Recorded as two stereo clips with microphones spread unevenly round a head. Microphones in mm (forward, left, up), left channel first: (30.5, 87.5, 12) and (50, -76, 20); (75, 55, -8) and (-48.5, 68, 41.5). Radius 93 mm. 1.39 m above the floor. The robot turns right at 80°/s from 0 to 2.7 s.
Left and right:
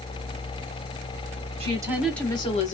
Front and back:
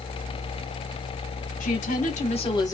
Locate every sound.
1.6 s a woman speaking: 30° right, 1.4 m; by 2.8 s 60° left, 1.4 m